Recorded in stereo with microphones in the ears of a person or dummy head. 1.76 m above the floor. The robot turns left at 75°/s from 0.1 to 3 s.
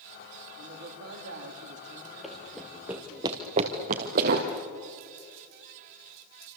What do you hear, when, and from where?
0.6 s a man speaking: 50° right, 3.5 m; by 3.2 s 125° left, 3.5 m
2.2 s running footsteps: centre (ahead or behind), 1.9 m; by 4.5 s 50° right (ahead or behind), 2.5 m